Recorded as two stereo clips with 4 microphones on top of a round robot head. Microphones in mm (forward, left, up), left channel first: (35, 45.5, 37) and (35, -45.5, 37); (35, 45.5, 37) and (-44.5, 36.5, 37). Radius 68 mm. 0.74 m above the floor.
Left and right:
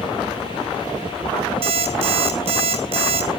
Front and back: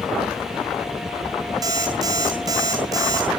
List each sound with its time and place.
1.6 s an alarm clock: 120° right, 3 m